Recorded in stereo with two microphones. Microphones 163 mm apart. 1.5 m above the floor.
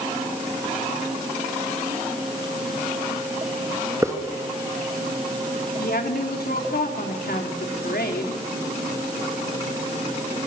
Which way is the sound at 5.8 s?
85° left.